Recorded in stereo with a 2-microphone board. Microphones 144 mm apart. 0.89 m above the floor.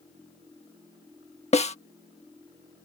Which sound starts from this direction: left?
A snare drum, at 1.5 s.